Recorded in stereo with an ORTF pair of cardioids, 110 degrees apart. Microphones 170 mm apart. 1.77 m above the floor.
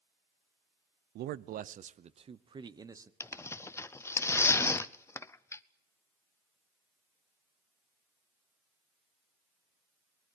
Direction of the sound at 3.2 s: 15° left.